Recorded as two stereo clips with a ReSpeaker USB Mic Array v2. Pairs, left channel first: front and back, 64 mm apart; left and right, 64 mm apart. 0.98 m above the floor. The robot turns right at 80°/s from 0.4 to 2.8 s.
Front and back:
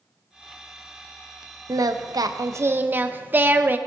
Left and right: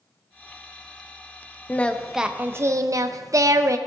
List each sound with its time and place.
1.7 s singing: 150° left, 0.5 m; by 3.8 s 120° right, 0.5 m